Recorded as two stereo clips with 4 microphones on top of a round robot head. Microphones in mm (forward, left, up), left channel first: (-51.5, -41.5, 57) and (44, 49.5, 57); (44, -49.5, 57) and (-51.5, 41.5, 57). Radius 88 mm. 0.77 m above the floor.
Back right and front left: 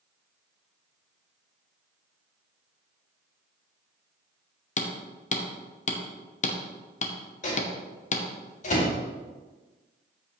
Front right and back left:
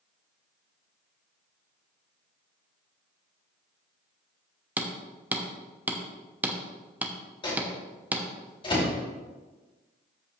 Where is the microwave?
100° right, 2.5 m.